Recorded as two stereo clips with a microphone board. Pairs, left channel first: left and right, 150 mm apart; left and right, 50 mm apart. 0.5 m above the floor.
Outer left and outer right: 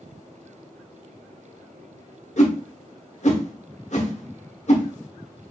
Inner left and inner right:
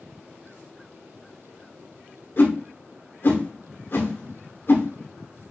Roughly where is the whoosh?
Left.